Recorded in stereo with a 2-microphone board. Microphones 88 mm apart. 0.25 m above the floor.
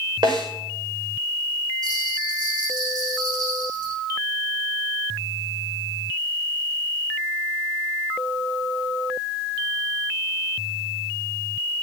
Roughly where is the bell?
Right.